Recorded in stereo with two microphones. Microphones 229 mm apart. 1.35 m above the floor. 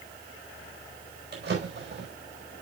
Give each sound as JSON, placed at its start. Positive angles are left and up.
{"t": 1.3, "sound": "a drawer", "side_deg": -50, "distance_m": 4.5}